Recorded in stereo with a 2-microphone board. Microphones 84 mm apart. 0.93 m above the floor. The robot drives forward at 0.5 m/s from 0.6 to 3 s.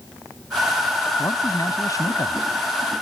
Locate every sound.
1.2 s a man speaking: 40° left (ahead or behind); by 2.5 s 45° left (ahead or behind)